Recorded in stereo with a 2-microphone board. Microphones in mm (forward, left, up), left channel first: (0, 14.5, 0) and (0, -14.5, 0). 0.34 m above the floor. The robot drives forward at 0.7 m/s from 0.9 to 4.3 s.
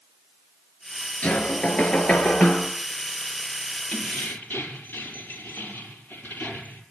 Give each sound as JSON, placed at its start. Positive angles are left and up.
{"t": 1.2, "sound": "knocking", "side_deg": 45, "distance_m": 3.5}
{"t": 3.9, "sound": "keys jangling", "side_deg": 65, "distance_m": 5.5}